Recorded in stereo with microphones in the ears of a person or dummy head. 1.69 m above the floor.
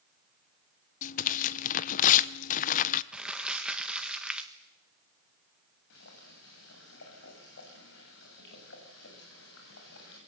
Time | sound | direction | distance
1.0 | tearing paper | 50° left (ahead or behind) | 1.0 m
3.1 | crumpling | 5° right (ahead or behind) | 1.6 m
5.9 | boiling | 70° left (ahead or behind) | 8 m